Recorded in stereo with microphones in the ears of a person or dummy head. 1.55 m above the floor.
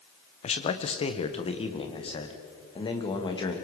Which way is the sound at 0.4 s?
35° left (ahead or behind).